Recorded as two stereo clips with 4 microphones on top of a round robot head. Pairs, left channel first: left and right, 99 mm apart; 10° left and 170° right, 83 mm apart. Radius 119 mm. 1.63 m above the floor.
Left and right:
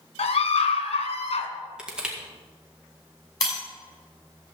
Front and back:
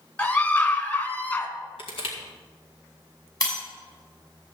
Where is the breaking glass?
45° left, 6 m.